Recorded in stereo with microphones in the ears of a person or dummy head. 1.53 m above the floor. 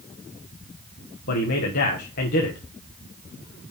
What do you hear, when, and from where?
1.3 s a man speaking: 45° left (ahead or behind), 0.8 m